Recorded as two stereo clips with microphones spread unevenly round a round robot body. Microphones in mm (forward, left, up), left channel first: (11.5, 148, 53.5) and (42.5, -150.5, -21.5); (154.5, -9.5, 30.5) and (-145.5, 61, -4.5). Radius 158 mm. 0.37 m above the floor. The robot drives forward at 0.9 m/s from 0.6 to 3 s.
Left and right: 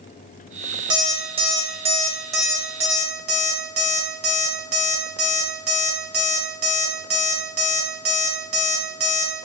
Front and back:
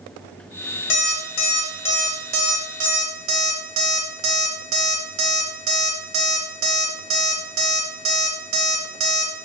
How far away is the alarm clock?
About 1.0 m.